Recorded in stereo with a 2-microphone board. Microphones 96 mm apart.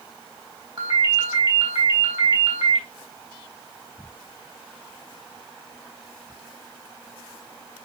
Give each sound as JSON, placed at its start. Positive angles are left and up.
{"t": 0.8, "sound": "a ringtone", "side_deg": -40, "distance_m": 3.5}